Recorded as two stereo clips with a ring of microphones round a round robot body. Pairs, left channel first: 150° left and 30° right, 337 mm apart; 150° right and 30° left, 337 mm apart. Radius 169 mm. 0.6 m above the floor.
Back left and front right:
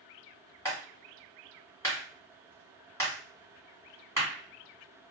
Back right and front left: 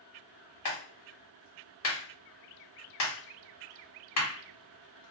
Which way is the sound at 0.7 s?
130° right.